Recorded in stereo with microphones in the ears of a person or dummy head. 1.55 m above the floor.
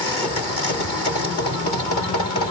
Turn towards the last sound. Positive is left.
No sound to turn to.